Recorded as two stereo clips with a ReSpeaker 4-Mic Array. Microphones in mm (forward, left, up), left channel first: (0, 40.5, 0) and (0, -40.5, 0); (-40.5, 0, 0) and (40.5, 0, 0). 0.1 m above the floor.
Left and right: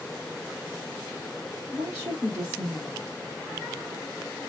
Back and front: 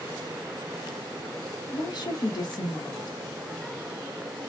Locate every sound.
1.7 s a woman speaking: 170° right, 2.5 m